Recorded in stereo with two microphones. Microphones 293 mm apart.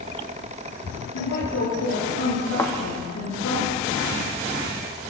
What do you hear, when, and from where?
1.1 s a woman speaking: 75° left (ahead or behind), 10 m; by 3.6 s 70° left (ahead or behind), 6.5 m
2.6 s a thud: 10° left (ahead or behind), 3 m